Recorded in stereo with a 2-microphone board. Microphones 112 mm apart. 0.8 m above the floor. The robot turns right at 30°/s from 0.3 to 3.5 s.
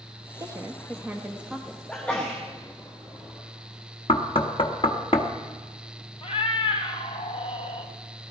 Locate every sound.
0.4 s a woman speaking: 40° right, 1.0 m; by 1.8 s straight ahead, 1.0 m
1.9 s a sneeze: 10° left (ahead or behind), 1.6 m; by 2.4 s 20° left (ahead or behind), 1.6 m
4.1 s knocking: 55° left (ahead or behind), 1.1 m
6.2 s a cat meowing: 65° left (ahead or behind), 1.4 m